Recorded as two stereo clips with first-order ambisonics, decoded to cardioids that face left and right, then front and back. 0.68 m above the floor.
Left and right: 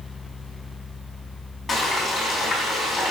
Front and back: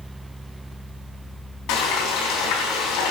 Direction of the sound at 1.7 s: 10° left.